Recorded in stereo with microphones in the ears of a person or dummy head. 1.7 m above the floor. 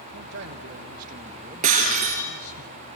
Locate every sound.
0.1 s a man speaking: 65° right (ahead or behind), 1.4 m; by 2.6 s 45° left (ahead or behind), 0.9 m
1.6 s breaking glass: 40° right (ahead or behind), 3.5 m